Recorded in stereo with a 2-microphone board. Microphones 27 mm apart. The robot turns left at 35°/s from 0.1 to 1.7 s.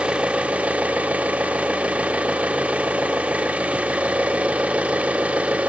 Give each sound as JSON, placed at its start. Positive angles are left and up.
{"t": 0.0, "sound": "an engine running", "azimuth_deg": -50, "distance_m": 0.7}